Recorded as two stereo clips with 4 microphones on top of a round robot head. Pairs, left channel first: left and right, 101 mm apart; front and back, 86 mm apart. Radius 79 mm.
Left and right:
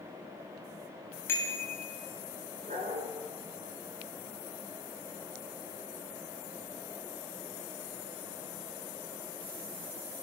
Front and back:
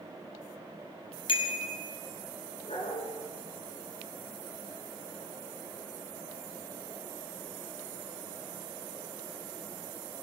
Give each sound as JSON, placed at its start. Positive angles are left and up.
{"t": 1.3, "sound": "a bicycle bell", "azimuth_deg": 20, "distance_m": 4.0}
{"t": 2.6, "sound": "a dog barking", "azimuth_deg": -50, "distance_m": 4.5}